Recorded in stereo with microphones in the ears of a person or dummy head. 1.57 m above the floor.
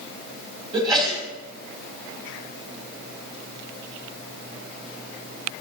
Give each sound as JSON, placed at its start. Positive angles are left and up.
{"t": 0.7, "sound": "a sneeze", "side_deg": -25, "distance_m": 3.5}